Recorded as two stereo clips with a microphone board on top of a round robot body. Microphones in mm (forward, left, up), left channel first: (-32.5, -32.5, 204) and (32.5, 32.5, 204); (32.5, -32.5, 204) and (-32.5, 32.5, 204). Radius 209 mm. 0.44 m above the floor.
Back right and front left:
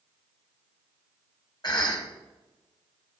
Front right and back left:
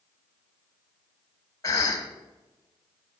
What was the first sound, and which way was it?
A cough, 95° right.